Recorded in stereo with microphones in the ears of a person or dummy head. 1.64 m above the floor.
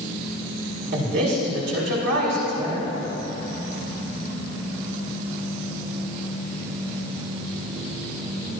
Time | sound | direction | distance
0.9 | a man speaking | 65° right (ahead or behind) | 5.5 m